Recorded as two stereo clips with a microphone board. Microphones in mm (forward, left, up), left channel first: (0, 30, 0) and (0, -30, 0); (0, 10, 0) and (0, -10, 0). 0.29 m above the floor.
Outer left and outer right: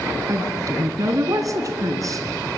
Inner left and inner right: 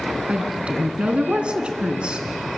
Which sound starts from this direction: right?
A woman speaking, at 0.3 s.